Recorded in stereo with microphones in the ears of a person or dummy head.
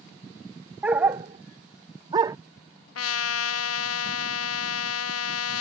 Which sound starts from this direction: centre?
A dog barking, at 0.8 s.